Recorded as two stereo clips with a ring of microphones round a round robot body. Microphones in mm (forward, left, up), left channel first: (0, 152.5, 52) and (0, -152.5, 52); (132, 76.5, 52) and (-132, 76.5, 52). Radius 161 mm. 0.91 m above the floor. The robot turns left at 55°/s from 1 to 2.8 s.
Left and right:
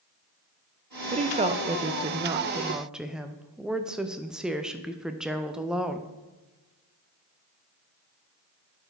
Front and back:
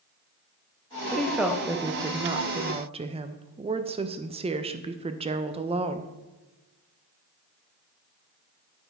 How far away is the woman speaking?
About 0.5 m.